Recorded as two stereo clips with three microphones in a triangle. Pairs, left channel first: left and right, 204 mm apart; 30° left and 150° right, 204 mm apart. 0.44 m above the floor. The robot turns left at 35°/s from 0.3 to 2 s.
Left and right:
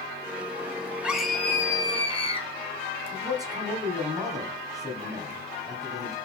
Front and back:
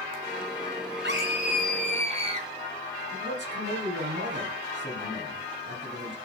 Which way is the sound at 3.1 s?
165° right.